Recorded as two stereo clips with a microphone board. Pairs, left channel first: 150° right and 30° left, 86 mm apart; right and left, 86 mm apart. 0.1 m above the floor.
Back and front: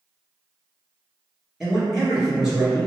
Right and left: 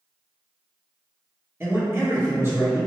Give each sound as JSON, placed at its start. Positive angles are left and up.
{"t": 1.6, "sound": "a man speaking", "azimuth_deg": 115, "distance_m": 1.6}